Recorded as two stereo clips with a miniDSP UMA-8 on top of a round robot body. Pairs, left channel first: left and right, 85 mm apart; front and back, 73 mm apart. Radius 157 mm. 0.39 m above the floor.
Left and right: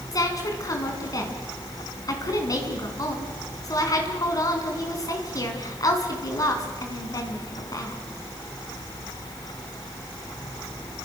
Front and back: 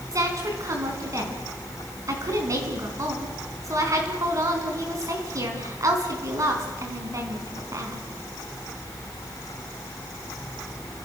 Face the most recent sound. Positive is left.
turn(degrees=135)